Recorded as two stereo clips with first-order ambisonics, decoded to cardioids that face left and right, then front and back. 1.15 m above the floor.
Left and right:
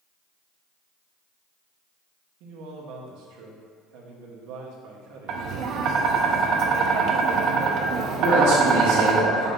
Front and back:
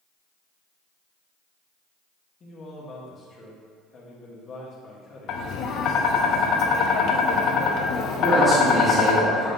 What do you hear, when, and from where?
2.4 s a man speaking: 65° right, 1.6 m
5.3 s tapping: 45° right, 0.8 m
8.2 s a man speaking: 90° right, 2.5 m